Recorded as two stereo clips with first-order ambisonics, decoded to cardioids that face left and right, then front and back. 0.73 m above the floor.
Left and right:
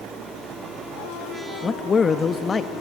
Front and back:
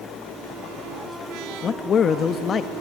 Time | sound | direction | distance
1.6 | a man speaking | 35° left | 0.5 m